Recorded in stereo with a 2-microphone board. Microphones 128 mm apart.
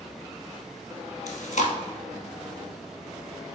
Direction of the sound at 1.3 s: 70° left (ahead or behind).